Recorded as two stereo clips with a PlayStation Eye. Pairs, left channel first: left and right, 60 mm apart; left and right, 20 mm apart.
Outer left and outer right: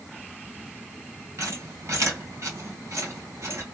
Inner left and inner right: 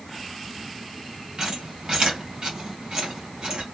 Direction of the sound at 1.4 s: 50° right (ahead or behind).